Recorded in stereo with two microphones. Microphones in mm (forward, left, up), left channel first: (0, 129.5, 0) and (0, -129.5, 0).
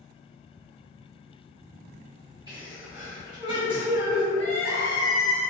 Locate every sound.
2.5 s a sneeze: 15° right (ahead or behind), 0.9 m
4.3 s crying: 10° left (ahead or behind), 1.2 m